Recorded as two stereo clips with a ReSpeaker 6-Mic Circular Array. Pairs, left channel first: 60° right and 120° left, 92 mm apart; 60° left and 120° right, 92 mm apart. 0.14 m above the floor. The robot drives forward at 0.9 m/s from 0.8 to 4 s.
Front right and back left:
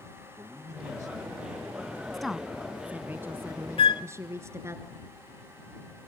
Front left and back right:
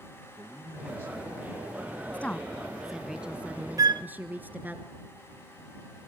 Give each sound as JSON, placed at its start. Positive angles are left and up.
{"t": 0.4, "sound": "a man speaking", "azimuth_deg": -175, "distance_m": 4.5}
{"t": 2.1, "sound": "a woman speaking", "azimuth_deg": 25, "distance_m": 1.0}
{"t": 3.8, "sound": "a flute", "azimuth_deg": -70, "distance_m": 0.5}